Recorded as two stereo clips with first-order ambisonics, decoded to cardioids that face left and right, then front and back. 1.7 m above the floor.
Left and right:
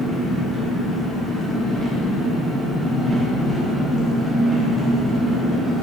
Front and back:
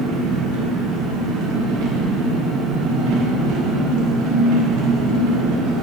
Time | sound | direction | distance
0.0 | an engine running | 165° right | 1.4 m